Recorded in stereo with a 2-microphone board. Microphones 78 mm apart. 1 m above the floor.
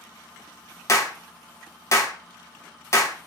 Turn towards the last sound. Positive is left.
turn(degrees=40)  # may be behind; listen again after turning